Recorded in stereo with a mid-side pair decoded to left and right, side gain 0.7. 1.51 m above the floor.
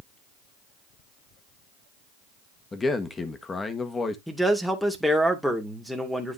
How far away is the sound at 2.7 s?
About 1.6 m.